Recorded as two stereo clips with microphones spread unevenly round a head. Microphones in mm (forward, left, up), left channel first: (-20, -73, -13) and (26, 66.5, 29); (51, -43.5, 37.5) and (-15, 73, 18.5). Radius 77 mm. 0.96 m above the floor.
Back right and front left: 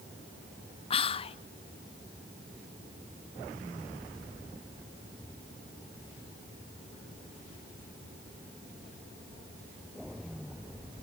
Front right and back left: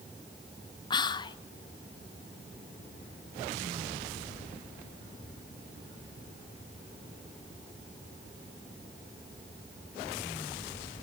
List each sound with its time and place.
0.9 s whispering: 120° right, 0.6 m